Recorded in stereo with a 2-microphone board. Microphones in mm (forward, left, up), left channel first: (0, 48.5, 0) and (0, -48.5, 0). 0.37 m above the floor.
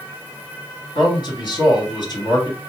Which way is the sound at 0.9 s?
50° left (ahead or behind).